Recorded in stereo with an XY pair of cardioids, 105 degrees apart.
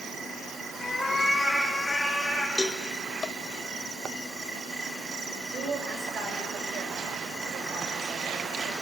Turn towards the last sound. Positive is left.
turn(degrees=-55)